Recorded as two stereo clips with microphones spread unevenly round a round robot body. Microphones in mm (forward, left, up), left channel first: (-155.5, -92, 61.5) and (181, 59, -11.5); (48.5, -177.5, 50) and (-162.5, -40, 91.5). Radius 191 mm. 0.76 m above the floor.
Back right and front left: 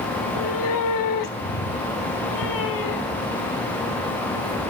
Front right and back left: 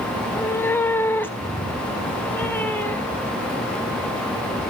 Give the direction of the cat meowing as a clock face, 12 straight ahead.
4 o'clock.